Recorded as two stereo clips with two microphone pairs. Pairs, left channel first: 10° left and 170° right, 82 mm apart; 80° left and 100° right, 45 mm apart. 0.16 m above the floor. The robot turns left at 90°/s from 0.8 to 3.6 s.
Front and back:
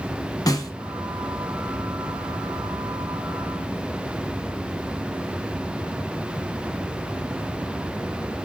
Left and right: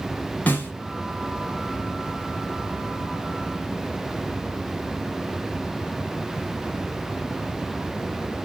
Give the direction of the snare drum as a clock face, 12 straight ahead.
11 o'clock.